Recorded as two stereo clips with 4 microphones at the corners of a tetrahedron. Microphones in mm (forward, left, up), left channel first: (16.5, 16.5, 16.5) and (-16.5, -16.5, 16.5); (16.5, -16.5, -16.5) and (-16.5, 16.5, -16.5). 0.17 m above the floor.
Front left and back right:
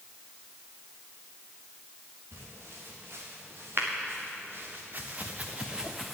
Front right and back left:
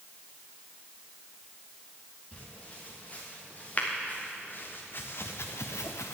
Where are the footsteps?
110° right, 4.5 m; by 6.2 s 45° right, 1.2 m.